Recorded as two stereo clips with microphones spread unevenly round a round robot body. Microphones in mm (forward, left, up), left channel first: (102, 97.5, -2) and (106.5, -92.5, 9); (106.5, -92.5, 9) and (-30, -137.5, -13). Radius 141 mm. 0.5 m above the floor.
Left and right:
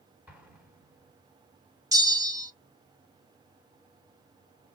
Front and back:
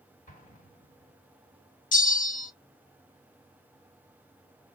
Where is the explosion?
10° right, 1.7 m.